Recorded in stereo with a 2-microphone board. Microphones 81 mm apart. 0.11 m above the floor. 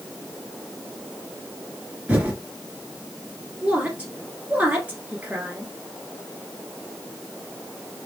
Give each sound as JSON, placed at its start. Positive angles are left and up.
{"t": 2.1, "sound": "typing on a keyboard", "side_deg": -20, "distance_m": 1.7}
{"t": 3.6, "sound": "a woman speaking", "side_deg": -20, "distance_m": 1.7}